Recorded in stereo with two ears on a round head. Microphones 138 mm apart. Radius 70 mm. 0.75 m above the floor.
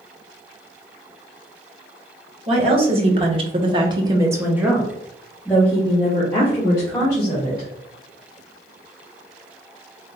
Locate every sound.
2.5 s a woman speaking: 35° right (ahead or behind), 1.7 m; by 7.7 s 20° left (ahead or behind), 3 m